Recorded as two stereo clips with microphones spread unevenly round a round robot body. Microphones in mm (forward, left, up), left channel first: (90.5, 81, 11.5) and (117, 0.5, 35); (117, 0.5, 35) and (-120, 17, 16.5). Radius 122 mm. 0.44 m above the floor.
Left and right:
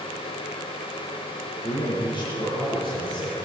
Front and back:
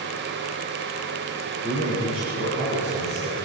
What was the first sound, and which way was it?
A man speaking, 90° left.